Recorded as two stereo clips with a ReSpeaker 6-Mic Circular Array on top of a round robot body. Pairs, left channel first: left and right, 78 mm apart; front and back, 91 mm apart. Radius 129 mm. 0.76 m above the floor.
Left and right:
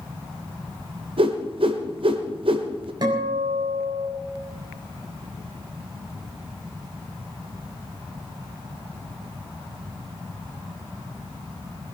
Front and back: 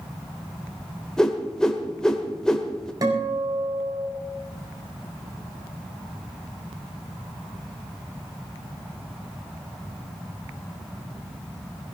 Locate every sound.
1.2 s a whoosh: 85° right, 1.2 m
3.0 s a guitar: 130° right, 4.5 m